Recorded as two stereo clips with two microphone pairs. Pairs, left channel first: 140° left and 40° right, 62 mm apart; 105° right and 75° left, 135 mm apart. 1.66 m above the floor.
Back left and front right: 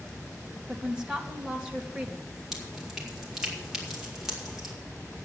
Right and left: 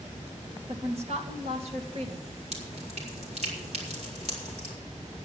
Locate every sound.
0.7 s a woman speaking: 40° left, 2.5 m
2.5 s dripping: 45° left, 4 m